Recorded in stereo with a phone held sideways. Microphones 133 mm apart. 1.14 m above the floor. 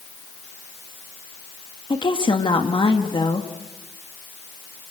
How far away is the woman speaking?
About 2 m.